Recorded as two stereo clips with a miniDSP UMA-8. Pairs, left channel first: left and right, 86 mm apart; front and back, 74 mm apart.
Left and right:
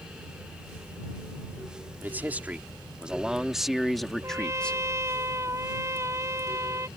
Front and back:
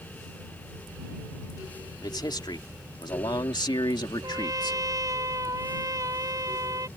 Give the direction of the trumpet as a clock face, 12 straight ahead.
5 o'clock.